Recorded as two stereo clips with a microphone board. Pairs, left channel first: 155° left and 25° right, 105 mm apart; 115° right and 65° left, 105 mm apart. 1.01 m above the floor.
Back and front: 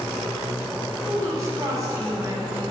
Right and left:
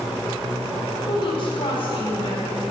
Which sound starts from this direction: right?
A woman speaking, at 1.1 s.